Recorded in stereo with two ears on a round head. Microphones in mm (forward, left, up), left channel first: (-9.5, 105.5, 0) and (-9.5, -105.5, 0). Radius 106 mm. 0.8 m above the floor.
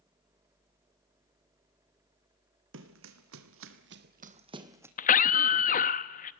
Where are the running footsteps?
55° right (ahead or behind), 2 m; by 4.9 s 10° right (ahead or behind), 1.8 m.